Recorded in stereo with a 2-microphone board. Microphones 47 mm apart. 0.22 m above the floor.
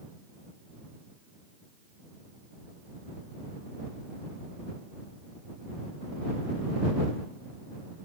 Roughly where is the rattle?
I don't hear a rattle.